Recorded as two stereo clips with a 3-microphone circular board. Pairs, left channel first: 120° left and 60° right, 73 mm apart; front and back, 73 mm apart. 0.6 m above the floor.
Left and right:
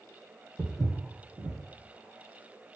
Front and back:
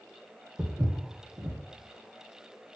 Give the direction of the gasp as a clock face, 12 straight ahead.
I don't hear a gasp.